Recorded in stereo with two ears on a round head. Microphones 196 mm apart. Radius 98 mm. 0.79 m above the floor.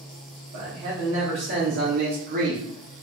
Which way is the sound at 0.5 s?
65° right (ahead or behind).